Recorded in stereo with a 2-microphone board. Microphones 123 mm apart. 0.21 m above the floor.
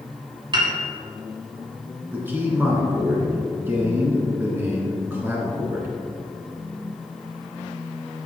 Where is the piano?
40° right (ahead or behind), 1.5 m.